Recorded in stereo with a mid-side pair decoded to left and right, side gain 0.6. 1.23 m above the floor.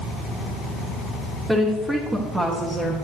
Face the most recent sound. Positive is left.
turn(degrees=-15)